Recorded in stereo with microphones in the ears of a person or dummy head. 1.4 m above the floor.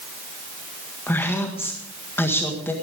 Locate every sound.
1.1 s a woman speaking: 10° left (ahead or behind), 1.8 m